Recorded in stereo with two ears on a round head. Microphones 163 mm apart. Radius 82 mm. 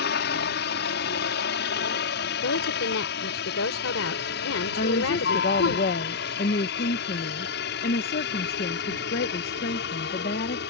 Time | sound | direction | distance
0.0 | a helicopter | 60° left (ahead or behind) | ?
2.4 | a woman speaking | 85° left | ?
4.8 | a woman speaking | 50° left (ahead or behind) | ?